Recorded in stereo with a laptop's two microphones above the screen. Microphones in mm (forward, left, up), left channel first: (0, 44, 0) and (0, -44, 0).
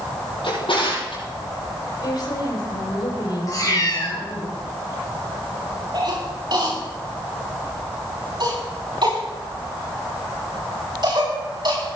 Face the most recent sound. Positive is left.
turn(degrees=-55)  # may be behind; listen again after turning